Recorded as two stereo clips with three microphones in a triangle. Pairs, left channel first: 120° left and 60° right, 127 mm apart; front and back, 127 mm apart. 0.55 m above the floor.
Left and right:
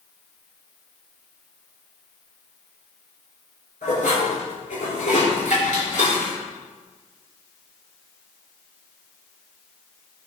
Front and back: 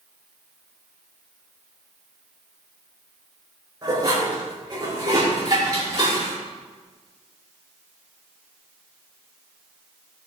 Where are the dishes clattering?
120° left, 5.5 m.